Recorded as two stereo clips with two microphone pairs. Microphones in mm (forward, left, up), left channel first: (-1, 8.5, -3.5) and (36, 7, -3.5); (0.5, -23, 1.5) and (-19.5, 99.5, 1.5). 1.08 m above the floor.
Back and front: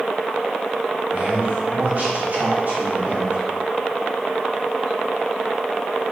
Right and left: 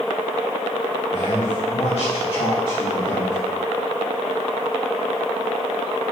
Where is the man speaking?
60° right, 3.5 m; by 3.4 s 25° right, 2.5 m.